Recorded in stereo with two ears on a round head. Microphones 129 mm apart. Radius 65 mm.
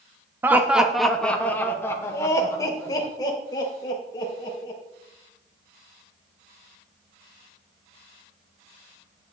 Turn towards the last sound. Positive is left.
turn(degrees=30)  # may be behind; listen again after turning